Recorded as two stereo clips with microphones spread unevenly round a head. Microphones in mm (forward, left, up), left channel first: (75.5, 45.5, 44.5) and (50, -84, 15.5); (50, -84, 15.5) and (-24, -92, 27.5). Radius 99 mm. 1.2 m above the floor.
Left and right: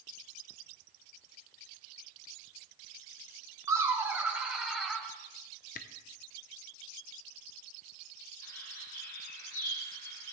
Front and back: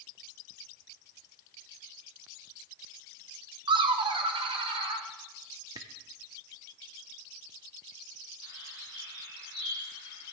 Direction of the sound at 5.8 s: 120° left.